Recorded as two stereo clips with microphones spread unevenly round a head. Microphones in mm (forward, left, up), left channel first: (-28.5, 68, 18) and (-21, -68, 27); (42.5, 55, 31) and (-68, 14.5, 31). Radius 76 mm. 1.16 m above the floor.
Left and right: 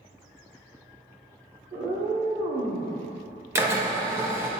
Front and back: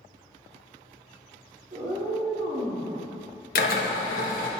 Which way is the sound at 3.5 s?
15° right.